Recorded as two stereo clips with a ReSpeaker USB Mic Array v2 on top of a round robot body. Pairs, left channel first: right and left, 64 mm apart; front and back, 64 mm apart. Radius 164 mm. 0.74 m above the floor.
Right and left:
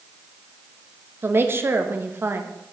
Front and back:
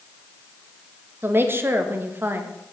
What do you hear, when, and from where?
1.2 s a woman speaking: 135° left, 1.1 m